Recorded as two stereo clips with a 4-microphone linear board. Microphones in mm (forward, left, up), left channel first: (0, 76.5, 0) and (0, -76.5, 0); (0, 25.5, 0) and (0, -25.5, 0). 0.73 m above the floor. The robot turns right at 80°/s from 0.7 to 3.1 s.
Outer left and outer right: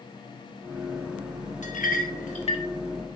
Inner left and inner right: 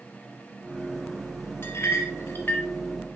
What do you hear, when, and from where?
1.6 s a clink: 50° left (ahead or behind), 0.9 m; by 2.6 s 30° left (ahead or behind), 0.9 m